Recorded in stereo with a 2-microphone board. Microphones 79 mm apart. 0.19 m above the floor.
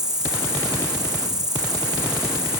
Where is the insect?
55° right (ahead or behind), 1.2 m.